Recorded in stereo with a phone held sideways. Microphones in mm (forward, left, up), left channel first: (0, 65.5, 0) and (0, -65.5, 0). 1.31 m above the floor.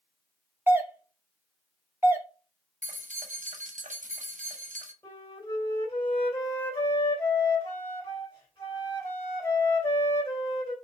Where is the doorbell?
15° right (ahead or behind), 0.6 m.